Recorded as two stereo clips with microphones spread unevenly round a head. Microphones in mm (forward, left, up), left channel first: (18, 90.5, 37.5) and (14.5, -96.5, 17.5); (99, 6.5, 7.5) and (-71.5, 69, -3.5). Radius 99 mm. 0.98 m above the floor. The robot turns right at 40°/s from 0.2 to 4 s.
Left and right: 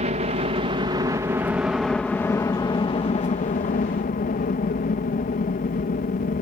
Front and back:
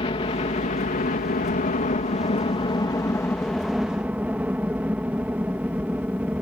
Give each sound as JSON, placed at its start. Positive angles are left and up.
{"t": 0.0, "sound": "a helicopter", "azimuth_deg": -70}